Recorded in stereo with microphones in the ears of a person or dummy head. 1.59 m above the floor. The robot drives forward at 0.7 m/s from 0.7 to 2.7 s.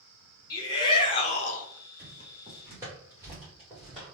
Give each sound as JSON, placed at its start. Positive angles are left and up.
{"t": 0.5, "sound": "a shout", "side_deg": 25, "distance_m": 1.2}
{"t": 2.0, "sound": "footsteps", "side_deg": -25, "distance_m": 1.7}